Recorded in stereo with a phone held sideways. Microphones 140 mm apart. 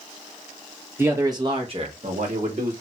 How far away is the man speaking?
About 1.2 m.